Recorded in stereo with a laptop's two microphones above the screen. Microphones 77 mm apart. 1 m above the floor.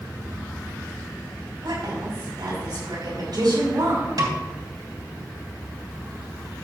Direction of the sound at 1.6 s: 65° right (ahead or behind).